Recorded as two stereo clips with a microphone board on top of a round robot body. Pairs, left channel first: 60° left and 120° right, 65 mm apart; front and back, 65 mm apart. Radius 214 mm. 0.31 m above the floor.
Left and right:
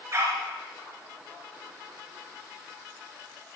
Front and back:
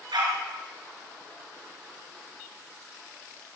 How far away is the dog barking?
About 3 m.